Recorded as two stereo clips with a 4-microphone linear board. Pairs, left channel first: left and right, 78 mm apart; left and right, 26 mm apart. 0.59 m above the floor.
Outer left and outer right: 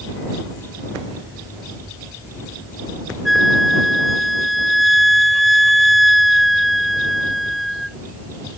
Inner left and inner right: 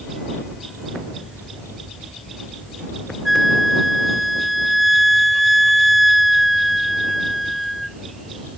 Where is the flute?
Centre (ahead or behind).